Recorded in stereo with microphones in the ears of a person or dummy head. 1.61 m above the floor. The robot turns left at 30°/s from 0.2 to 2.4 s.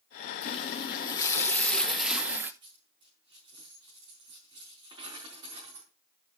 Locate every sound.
0.4 s a running tap: 50° left, 0.9 m; by 2.5 s 10° right, 0.9 m
2.6 s a dropped coin: 30° right (ahead or behind), 4 m